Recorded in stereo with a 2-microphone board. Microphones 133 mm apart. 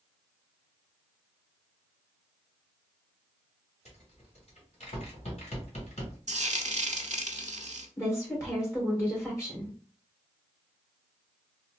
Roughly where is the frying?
Right.